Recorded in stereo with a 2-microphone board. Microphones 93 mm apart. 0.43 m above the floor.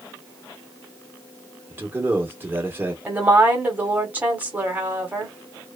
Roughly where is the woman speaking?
Centre.